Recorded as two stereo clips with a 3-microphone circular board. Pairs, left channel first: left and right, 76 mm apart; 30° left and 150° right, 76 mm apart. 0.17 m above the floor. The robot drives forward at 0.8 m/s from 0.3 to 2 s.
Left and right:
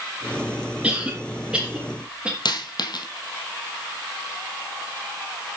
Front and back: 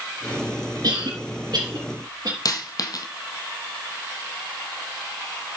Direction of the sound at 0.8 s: 165° right.